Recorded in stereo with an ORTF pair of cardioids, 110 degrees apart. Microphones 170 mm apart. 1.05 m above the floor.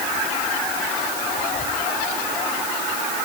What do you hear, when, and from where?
Only background noise.